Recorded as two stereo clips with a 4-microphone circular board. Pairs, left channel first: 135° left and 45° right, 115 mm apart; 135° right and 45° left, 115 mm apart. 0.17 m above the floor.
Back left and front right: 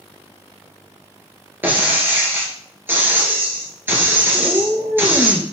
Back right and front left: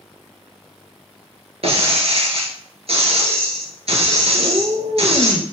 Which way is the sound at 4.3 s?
40° left.